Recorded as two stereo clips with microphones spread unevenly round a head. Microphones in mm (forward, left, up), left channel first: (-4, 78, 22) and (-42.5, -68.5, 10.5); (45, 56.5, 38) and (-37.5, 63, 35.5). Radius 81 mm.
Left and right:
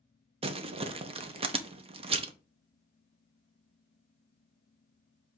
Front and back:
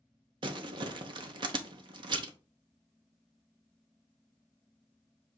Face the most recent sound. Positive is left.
turn(degrees=-155)